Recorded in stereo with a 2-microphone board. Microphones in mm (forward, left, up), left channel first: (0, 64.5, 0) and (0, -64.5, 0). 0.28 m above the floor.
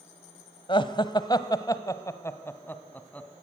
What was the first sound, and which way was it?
Laughter, 40° left (ahead or behind).